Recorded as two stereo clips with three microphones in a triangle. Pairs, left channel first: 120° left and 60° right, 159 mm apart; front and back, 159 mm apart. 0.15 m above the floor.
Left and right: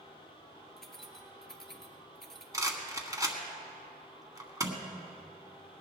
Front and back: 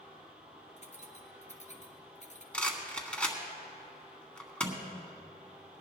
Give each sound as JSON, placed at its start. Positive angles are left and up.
{"t": 0.8, "sound": "keys jangling", "azimuth_deg": 35, "distance_m": 1.5}
{"t": 2.5, "sound": "a rattle", "azimuth_deg": -70, "distance_m": 1.6}